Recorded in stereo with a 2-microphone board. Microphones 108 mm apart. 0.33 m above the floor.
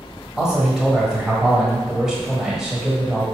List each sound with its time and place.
0.4 s a man speaking: 5° right (ahead or behind), 1.5 m